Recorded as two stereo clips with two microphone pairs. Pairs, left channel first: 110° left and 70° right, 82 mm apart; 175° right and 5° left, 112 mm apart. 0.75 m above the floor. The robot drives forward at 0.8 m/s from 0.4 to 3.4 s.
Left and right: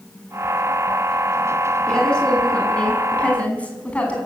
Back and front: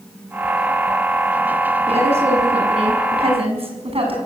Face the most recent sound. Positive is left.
turn(degrees=35)